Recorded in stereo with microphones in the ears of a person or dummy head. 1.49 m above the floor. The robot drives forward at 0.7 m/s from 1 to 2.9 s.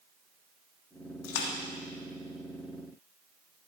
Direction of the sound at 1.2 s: 75° left (ahead or behind).